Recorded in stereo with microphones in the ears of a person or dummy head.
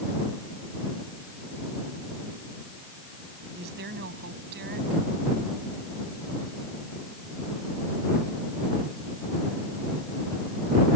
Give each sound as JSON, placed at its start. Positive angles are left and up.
{"t": 3.5, "sound": "a woman speaking", "side_deg": -55}